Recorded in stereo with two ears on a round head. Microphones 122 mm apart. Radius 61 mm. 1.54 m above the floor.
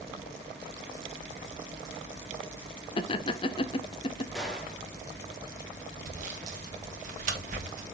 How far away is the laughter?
About 0.7 m.